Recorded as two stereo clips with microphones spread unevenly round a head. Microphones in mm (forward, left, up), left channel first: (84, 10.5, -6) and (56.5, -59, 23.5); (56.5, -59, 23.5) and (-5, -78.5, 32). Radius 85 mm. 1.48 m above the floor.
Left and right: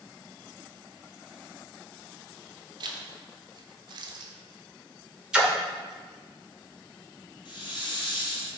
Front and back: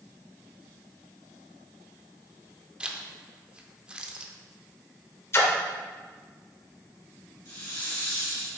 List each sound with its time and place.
2.8 s a zipper: 90° right, 0.6 m
5.3 s a splash: 25° right, 0.9 m
7.5 s a hiss: 55° left, 1.8 m